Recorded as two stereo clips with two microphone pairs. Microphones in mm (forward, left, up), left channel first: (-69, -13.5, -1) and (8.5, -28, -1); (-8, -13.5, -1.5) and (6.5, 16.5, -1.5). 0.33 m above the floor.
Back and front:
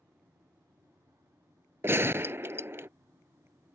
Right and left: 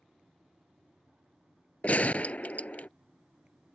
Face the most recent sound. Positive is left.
turn(degrees=-70)